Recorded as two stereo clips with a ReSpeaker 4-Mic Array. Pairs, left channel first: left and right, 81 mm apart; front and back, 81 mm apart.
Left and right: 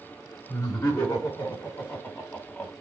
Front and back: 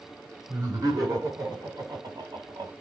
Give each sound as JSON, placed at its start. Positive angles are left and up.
{"t": 0.5, "sound": "laughter", "azimuth_deg": 140, "distance_m": 5.5}